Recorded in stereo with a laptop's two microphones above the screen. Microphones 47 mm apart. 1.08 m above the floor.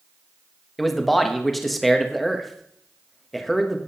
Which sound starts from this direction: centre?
A man speaking, at 0.8 s.